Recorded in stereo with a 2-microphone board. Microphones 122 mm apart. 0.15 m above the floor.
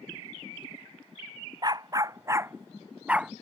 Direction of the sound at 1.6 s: 35° right (ahead or behind).